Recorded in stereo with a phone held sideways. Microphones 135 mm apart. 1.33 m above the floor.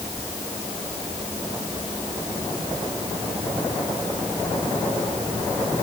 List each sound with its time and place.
Only background noise.